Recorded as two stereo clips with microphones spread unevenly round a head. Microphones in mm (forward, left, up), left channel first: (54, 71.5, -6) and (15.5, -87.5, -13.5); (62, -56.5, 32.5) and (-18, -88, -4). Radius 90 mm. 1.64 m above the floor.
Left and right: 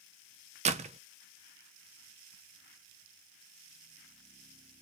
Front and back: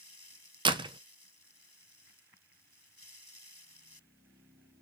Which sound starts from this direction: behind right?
A door slam, at 0.7 s.